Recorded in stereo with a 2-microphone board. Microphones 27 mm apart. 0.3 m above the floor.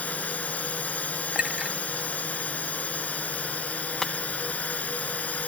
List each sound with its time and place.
0.0 s a drone: 70° left (ahead or behind)
1.4 s a clink: 40° right (ahead or behind)
4.0 s breaking glass: 20° left (ahead or behind)